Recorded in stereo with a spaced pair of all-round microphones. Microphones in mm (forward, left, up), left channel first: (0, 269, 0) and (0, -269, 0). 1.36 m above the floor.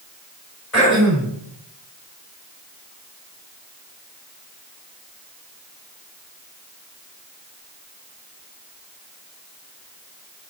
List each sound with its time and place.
0.7 s throat clearing: 25° left (ahead or behind), 6 m